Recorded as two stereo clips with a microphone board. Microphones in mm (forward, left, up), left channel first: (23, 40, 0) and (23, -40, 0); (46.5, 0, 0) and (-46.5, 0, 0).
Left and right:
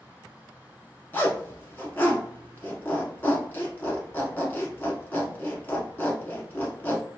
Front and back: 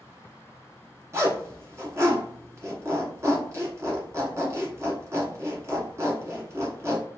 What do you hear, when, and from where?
1.1 s a zipper: 140° left, 1.0 m